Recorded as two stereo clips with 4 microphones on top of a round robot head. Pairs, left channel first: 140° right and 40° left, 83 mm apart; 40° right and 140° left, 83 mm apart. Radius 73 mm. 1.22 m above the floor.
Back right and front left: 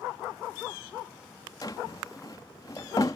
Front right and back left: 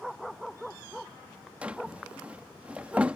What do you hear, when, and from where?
1.6 s a drawer: 150° right